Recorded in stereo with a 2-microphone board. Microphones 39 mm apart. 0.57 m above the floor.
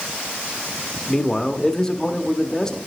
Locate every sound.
1.1 s a man speaking: 15° left (ahead or behind), 0.6 m